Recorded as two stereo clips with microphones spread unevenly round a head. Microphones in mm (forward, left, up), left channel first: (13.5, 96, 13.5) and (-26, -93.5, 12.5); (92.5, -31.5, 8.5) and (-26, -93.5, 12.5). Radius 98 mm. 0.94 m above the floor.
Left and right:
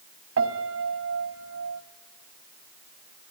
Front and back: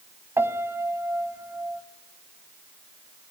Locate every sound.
0.4 s a piano: 85° right, 1.8 m